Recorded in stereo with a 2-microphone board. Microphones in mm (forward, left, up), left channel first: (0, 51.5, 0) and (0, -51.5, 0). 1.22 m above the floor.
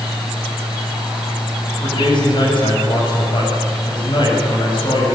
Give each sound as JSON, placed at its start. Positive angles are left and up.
{"t": 1.8, "sound": "a man speaking", "side_deg": 50, "distance_m": 7.0}